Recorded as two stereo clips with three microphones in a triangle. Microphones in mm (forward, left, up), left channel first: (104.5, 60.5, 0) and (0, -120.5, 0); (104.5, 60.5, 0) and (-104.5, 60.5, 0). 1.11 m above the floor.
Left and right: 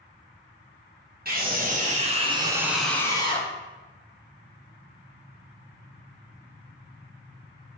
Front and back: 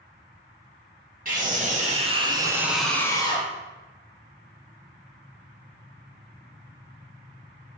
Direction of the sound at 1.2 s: 145° right.